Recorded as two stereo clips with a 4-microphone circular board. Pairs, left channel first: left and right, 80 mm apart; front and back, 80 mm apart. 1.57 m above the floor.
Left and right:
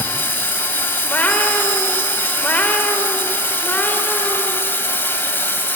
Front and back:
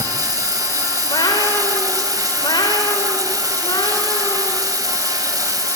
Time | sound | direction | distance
0.0 | running water | 150° left | 2.5 m
1.0 | a cat meowing | 20° left | 3 m